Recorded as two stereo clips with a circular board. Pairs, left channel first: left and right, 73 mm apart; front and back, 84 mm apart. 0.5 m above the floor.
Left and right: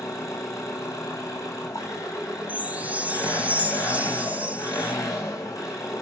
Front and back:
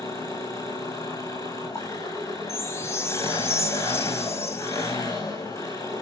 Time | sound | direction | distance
0.0 | an engine running | 50° left | 9.5 m
2.5 | a chime | 30° right | 0.9 m